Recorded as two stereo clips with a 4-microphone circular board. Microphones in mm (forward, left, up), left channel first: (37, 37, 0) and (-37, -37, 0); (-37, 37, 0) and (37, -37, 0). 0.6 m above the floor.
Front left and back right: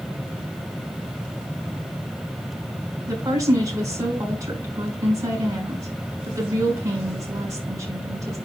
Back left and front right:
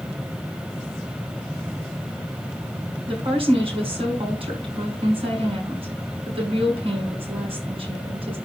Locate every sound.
3.1 s a woman speaking: 75° right, 6.5 m